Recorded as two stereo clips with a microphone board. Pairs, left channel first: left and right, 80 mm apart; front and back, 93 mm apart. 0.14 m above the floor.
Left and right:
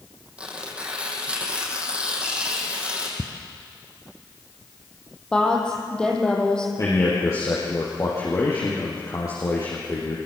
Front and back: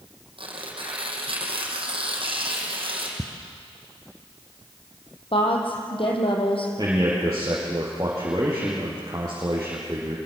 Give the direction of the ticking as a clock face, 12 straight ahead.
4 o'clock.